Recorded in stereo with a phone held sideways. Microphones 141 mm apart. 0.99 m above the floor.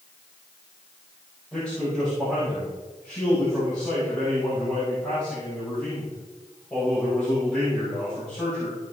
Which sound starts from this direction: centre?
A man speaking, at 1.5 s.